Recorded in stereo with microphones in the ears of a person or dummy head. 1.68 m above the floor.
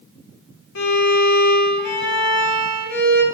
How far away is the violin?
About 1.3 m.